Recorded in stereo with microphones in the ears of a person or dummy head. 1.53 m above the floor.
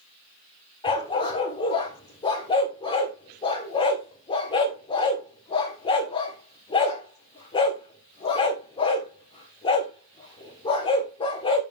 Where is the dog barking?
25° left (ahead or behind), 2 m.